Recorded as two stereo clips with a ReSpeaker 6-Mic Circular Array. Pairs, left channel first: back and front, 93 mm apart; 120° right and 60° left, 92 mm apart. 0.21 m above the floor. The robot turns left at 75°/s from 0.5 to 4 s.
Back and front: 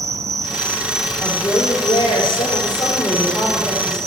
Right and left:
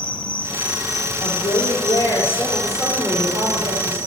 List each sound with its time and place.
0.0 s an insect: 45° right, 0.8 m; by 4.1 s 50° left, 0.8 m
1.2 s a woman speaking: 100° right, 5 m; by 4.0 s 50° left, 5 m